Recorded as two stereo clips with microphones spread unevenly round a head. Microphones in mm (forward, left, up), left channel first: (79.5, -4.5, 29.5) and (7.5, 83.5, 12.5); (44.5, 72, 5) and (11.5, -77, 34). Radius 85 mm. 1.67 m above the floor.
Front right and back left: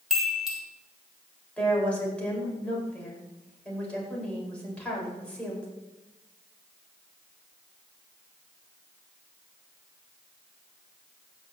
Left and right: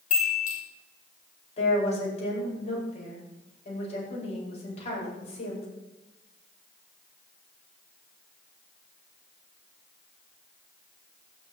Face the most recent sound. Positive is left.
turn(degrees=30)